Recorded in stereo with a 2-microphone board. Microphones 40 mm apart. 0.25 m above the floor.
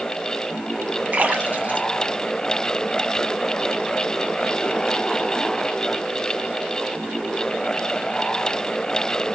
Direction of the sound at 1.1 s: 40° right (ahead or behind).